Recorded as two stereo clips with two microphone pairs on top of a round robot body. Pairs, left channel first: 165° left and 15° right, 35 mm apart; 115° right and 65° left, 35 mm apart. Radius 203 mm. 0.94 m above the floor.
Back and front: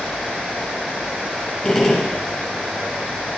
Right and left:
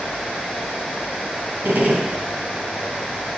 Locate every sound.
1.6 s a gunshot: 80° left, 1.2 m